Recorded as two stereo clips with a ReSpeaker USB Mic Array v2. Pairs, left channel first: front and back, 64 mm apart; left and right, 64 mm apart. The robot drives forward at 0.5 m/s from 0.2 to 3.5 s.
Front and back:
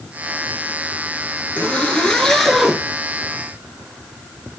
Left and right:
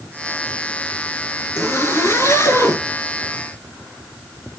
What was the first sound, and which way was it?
A zipper, 60° left.